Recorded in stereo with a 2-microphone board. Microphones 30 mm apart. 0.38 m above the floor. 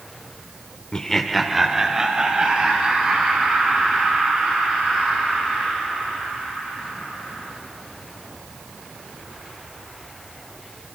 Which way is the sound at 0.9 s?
20° left (ahead or behind).